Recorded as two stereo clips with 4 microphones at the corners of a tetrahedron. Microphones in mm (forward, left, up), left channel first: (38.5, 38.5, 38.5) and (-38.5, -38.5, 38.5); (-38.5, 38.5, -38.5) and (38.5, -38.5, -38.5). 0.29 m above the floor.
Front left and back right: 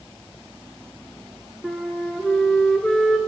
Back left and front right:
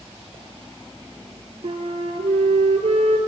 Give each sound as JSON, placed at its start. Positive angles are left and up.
{"t": 1.6, "sound": "a flute", "azimuth_deg": -40, "distance_m": 0.9}